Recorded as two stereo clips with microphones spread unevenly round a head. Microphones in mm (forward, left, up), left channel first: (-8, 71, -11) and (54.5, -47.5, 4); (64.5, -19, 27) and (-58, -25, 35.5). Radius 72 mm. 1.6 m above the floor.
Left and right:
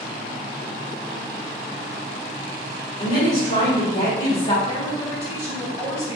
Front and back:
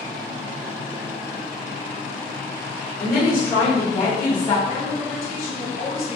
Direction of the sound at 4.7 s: 10° left.